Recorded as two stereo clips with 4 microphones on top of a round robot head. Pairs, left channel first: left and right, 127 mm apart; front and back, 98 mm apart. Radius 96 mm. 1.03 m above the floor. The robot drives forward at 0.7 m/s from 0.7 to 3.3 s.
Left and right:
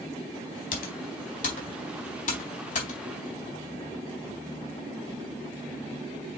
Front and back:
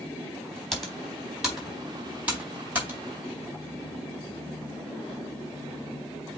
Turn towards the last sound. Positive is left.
turn(degrees=110)